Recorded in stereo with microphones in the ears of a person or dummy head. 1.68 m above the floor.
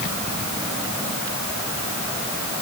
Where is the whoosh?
No whoosh in this recording.